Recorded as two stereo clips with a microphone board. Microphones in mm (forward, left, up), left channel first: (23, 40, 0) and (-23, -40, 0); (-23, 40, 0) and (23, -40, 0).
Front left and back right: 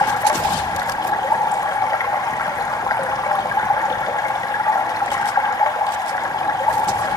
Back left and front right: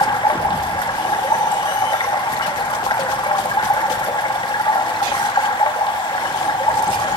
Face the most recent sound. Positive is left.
turn(degrees=105)